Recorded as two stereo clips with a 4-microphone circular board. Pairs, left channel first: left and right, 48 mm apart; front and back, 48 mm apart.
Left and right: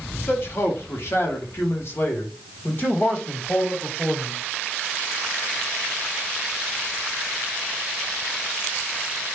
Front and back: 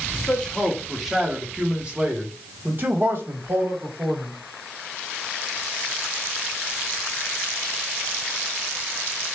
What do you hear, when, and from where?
0.1 s a man speaking: 65° left, 1.2 m; by 4.3 s 150° left, 2 m